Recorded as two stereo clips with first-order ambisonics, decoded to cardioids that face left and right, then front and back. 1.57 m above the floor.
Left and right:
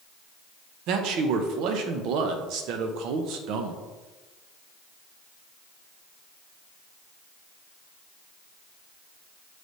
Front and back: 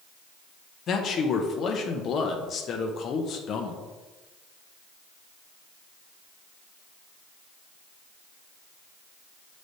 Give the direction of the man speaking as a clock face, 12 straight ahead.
2 o'clock.